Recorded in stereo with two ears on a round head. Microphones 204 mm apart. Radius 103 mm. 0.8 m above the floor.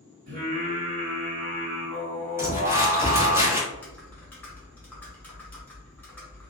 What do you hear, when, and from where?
0.3 s singing: 45° right (ahead or behind), 1.6 m
2.4 s crumpling: 10° right (ahead or behind), 1.3 m
3.7 s typing on a keyboard: 10° left (ahead or behind), 0.8 m